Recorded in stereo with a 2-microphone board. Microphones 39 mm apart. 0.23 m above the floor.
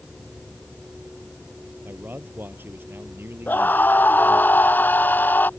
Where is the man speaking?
65° right (ahead or behind); by 4.5 s 75° right (ahead or behind).